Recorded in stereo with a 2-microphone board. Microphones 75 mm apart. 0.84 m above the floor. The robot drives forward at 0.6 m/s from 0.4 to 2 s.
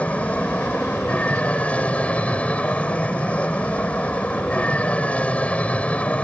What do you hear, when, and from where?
0.0 s an aircraft: 20° left (ahead or behind); by 6.2 s 15° left (ahead or behind)